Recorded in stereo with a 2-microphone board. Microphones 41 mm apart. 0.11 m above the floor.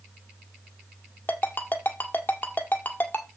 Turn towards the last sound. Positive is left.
turn(degrees=50)  # may be behind; listen again after turning